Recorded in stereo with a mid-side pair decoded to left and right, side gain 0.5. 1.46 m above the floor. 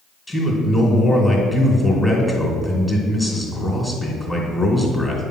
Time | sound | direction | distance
0.3 | a man speaking | 10° left | 2.5 m